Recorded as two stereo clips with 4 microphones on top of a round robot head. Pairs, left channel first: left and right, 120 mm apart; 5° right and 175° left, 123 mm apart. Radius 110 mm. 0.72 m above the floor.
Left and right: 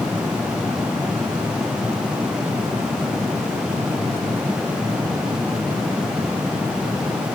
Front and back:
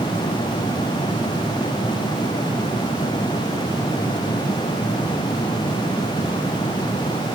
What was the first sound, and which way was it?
Only background noise.